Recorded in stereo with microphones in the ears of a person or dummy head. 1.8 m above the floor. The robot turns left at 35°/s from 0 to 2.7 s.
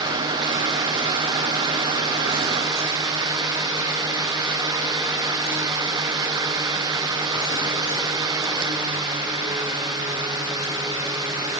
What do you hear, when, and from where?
Only background noise.